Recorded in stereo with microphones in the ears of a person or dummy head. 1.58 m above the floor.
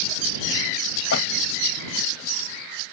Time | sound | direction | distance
1.1 | a door slam | 65° left (ahead or behind) | ?